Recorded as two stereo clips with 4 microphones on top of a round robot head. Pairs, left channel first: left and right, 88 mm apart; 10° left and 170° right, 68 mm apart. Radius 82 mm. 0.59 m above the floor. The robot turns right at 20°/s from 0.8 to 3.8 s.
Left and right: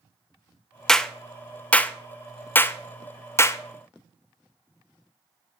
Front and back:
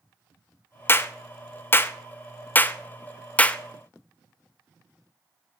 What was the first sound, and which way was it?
A clap, 10° left.